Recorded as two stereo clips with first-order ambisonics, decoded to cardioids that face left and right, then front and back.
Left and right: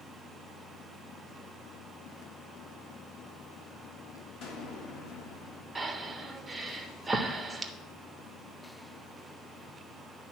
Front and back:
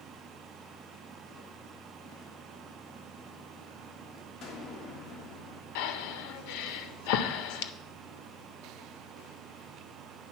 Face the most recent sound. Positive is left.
turn(degrees=-10)